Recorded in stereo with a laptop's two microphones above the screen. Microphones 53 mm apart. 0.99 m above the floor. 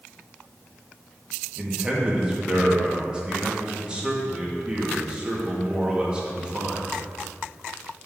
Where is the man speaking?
20° right (ahead or behind), 1.5 m.